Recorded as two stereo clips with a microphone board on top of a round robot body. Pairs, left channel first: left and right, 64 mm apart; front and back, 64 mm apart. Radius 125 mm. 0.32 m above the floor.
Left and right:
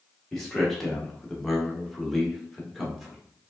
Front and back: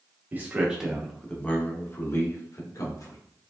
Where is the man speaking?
170° left, 1.3 m; by 3.2 s straight ahead, 2 m.